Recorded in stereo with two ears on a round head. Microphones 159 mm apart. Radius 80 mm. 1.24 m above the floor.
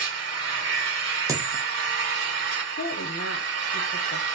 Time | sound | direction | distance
0.0 | an engine running | 70° right (ahead or behind) | 1.5 m
1.3 | a dropped coin | 20° right (ahead or behind) | 0.6 m
2.8 | a woman speaking | 70° left (ahead or behind) | 0.6 m